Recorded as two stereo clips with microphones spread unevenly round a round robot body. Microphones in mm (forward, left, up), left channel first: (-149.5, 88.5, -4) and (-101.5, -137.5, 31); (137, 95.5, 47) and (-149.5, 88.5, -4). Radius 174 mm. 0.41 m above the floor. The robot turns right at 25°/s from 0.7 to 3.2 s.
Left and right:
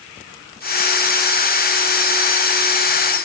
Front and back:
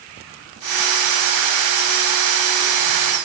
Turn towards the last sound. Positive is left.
No sound to turn to.